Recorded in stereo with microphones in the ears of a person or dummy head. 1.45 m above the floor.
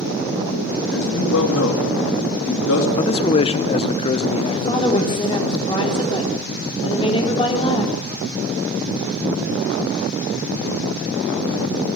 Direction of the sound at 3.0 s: 20° left (ahead or behind).